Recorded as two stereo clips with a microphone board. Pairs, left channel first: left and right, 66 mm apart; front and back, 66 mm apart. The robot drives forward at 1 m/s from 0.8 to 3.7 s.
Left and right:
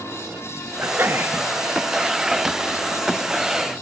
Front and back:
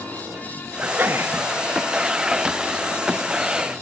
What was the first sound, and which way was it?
A sneeze, 130° right.